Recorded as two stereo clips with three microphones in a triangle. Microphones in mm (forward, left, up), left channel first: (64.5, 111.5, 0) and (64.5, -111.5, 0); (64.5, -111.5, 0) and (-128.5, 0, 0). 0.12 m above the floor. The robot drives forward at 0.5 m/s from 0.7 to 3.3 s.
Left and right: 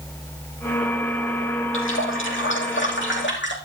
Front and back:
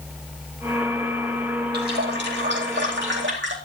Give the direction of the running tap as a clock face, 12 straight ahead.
8 o'clock.